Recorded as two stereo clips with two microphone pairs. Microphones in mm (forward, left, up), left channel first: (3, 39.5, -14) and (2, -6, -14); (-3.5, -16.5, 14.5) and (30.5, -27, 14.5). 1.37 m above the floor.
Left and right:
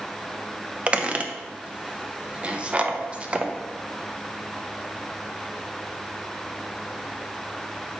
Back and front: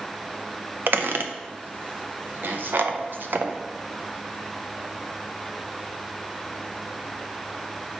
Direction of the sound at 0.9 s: 25° right.